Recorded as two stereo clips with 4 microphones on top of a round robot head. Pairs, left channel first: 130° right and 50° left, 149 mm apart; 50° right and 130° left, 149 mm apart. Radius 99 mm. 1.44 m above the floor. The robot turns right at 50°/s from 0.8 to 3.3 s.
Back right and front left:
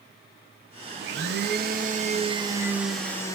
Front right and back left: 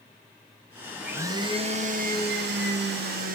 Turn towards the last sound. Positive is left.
turn(degrees=160)